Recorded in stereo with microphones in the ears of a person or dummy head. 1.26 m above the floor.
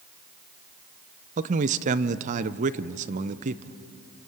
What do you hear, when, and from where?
1.4 s a man speaking: 40° right (ahead or behind), 0.7 m